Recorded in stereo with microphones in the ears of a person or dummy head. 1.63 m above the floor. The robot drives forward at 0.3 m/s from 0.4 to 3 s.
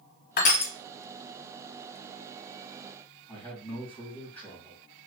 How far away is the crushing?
About 0.7 m.